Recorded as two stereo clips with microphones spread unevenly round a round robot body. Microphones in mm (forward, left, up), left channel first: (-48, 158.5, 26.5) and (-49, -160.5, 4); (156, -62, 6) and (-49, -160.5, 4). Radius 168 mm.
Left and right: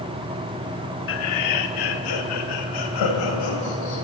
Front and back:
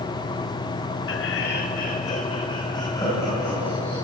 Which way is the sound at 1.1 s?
40° left.